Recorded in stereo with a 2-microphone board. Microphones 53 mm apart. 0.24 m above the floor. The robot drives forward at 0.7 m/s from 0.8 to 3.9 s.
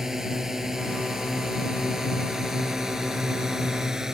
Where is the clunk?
No clunk in this recording.